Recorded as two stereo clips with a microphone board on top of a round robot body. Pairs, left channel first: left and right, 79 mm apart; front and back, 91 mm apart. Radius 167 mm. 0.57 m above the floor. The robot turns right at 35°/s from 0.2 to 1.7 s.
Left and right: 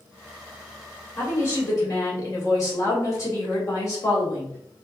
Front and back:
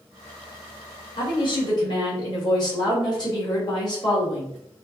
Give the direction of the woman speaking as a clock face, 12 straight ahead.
11 o'clock.